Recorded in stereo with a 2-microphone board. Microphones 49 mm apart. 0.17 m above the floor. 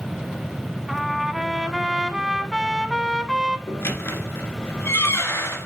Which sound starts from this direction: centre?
A trumpet, at 0.9 s.